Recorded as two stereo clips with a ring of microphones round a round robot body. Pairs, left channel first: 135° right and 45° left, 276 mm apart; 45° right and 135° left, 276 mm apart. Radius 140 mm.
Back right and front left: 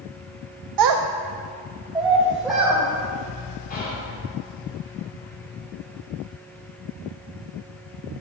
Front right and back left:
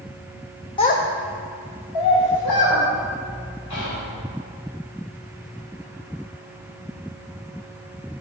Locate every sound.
0.8 s a child speaking: 30° left, 0.5 m; by 2.8 s 45° right, 2 m
3.7 s whispering: 75° right, 2.5 m